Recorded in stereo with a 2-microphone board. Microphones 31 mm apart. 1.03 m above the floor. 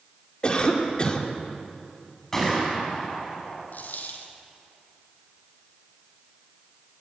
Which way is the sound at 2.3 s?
15° left (ahead or behind).